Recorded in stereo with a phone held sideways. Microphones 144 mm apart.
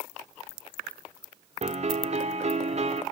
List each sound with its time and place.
1.6 s a piano: 50° right (ahead or behind), 1.6 m